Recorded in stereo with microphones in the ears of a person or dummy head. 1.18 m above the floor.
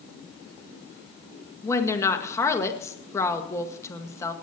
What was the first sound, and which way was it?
A woman speaking, 15° left (ahead or behind).